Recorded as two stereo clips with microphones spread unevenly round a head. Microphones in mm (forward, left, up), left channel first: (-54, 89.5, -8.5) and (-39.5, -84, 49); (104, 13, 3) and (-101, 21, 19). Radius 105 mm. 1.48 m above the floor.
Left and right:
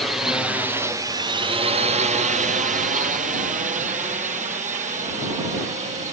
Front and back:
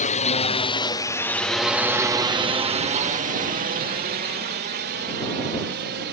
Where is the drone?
25° left; by 6.1 s 140° right.